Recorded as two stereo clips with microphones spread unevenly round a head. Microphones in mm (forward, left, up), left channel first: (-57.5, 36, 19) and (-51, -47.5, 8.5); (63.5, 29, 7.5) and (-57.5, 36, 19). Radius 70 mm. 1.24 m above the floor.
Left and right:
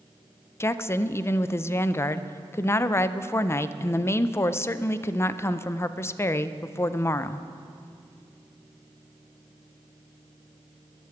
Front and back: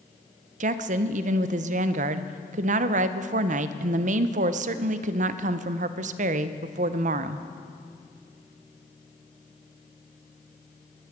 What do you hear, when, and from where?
0.6 s a woman speaking: 155° left, 0.6 m